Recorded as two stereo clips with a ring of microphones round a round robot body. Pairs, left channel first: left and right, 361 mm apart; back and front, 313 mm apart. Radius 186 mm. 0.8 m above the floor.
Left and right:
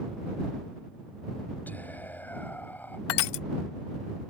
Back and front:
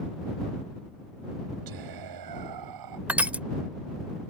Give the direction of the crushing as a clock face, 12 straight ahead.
9 o'clock.